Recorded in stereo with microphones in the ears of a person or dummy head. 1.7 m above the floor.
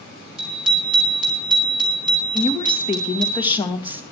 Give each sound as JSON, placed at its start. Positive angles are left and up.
{"t": 0.4, "sound": "a bicycle bell", "side_deg": -5, "distance_m": 5.0}
{"t": 2.3, "sound": "a woman speaking", "side_deg": 25, "distance_m": 1.9}